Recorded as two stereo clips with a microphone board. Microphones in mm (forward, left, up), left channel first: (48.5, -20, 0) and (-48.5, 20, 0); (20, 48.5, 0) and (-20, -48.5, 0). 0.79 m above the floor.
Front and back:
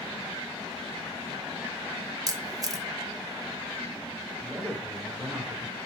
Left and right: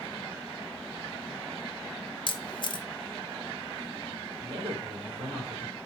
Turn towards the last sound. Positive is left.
turn(degrees=-125)